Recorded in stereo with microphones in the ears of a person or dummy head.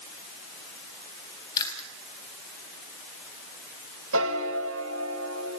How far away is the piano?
About 1.9 m.